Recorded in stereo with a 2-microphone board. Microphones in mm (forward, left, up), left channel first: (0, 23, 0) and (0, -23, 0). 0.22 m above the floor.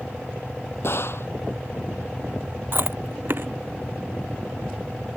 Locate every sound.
0.8 s a gunshot: 60° left (ahead or behind)
2.7 s chewing: 50° right (ahead or behind)